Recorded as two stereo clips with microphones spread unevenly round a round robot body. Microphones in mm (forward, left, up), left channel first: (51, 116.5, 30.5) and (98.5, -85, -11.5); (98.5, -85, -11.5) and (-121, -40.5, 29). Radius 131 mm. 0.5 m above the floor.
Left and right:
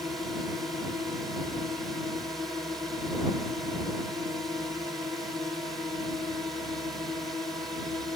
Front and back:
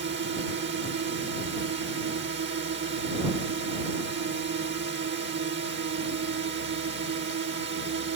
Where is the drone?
160° right.